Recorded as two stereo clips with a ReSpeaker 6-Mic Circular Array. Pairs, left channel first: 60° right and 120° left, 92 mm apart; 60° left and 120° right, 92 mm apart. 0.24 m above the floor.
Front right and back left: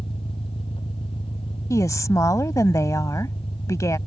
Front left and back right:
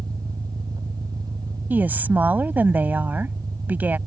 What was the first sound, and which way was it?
An engine running, 75° right.